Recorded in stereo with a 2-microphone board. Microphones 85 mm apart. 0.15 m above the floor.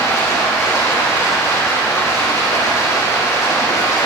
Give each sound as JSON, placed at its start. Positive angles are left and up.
{"t": 0.0, "sound": "running water", "side_deg": 40, "distance_m": 5.0}